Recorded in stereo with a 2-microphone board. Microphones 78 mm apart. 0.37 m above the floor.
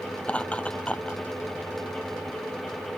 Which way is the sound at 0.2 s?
15° left (ahead or behind).